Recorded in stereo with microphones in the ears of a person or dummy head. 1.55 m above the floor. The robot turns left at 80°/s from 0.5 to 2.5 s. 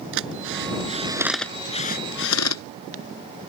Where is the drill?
70° right (ahead or behind); by 2.6 s 85° left.